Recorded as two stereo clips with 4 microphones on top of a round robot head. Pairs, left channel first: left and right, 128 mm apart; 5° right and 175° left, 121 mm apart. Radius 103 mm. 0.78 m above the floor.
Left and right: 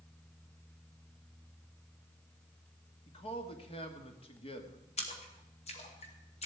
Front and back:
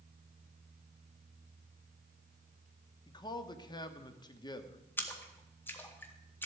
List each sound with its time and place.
3.1 s a man speaking: 45° left, 1.5 m
5.0 s a splash: 65° left, 2 m